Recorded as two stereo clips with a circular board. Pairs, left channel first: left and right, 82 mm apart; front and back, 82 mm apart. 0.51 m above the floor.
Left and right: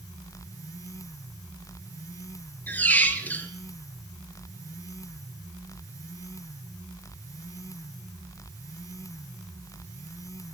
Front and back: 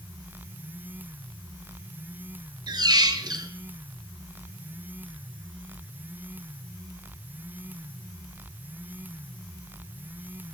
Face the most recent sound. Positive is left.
turn(degrees=155)